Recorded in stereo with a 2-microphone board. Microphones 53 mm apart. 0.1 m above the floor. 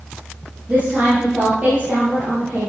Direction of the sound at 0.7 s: 30° right (ahead or behind).